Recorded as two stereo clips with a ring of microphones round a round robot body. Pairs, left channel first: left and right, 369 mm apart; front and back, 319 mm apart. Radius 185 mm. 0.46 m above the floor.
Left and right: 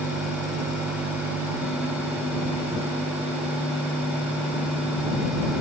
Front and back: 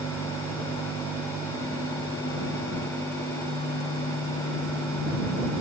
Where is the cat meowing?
No cat meowing in this recording.